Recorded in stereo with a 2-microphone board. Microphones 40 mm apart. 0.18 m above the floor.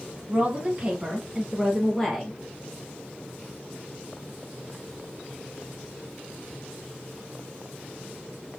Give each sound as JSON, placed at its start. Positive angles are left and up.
{"t": 0.3, "sound": "a woman speaking", "side_deg": -35, "distance_m": 1.3}